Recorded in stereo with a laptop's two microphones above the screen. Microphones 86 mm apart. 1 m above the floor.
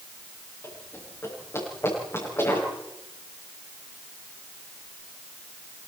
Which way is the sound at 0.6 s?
30° left (ahead or behind).